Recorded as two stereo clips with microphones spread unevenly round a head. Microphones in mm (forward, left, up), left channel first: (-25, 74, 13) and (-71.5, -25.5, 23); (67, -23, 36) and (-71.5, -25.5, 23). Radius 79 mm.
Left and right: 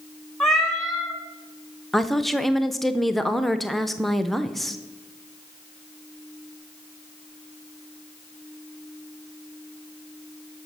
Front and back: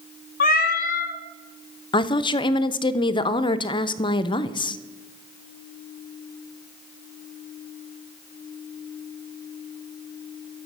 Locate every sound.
0.4 s a cat meowing: 25° right, 0.9 m
1.9 s a woman speaking: 15° right, 0.5 m